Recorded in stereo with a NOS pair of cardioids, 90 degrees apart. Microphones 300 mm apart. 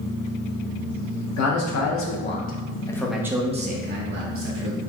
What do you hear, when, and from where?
1.4 s a man speaking: 60° left, 1.2 m; by 4.8 s 55° right, 1.2 m